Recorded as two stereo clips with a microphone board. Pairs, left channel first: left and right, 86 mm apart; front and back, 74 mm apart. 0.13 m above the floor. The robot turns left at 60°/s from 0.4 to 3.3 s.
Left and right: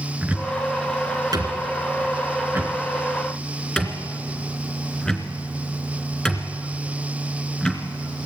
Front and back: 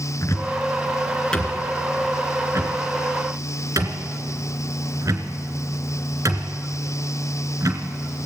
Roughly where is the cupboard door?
Ahead right.